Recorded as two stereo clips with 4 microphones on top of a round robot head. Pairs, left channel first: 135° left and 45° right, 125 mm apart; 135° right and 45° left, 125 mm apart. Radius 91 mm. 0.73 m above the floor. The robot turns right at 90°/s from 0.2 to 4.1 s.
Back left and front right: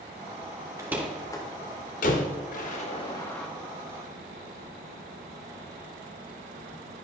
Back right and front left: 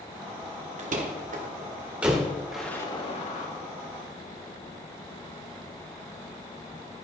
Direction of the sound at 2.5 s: 130° left.